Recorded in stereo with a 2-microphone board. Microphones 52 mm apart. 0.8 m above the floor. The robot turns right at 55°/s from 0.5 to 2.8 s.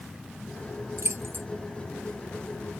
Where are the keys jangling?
70° right (ahead or behind), 1.0 m; by 1.5 s 45° right (ahead or behind), 1.0 m.